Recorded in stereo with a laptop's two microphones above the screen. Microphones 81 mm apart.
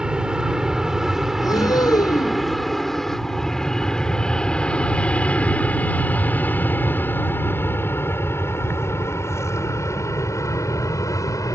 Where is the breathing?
50° left (ahead or behind).